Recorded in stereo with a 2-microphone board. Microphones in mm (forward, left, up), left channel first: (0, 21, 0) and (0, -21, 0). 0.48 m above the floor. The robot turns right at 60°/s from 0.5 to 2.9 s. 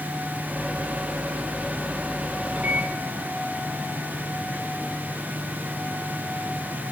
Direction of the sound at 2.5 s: 25° right (ahead or behind).